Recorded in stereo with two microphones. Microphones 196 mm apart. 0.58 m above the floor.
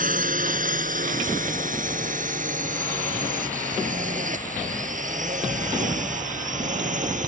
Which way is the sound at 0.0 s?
45° right (ahead or behind).